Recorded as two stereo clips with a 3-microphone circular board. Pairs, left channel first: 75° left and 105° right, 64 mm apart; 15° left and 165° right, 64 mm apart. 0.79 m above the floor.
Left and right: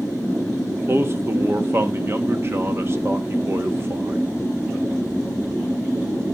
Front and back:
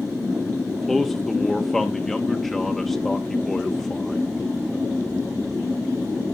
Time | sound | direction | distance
0.7 | a man speaking | 70° right | 1.4 m